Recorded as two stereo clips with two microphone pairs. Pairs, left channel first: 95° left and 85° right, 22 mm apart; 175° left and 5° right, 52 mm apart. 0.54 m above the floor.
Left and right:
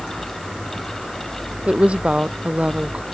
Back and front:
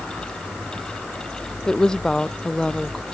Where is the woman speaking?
110° right.